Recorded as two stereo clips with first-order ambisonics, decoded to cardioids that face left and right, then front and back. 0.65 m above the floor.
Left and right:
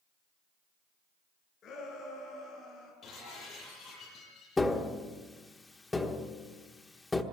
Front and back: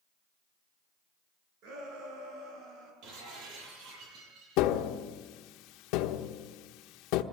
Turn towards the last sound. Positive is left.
turn(degrees=10)